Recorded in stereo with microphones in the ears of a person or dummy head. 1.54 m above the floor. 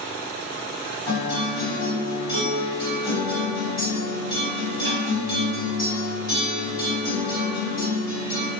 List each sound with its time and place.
1.1 s a guitar: 25° left (ahead or behind), 1.5 m